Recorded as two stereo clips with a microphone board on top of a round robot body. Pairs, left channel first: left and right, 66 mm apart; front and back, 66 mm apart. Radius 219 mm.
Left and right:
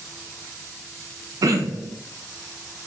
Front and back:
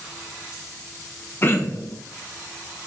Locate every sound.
1.4 s throat clearing: 55° right, 0.7 m